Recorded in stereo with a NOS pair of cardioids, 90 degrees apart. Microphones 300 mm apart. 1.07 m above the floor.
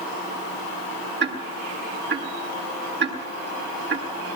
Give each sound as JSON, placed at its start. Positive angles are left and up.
{"t": 1.2, "sound": "ticking", "azimuth_deg": -35, "distance_m": 9.0}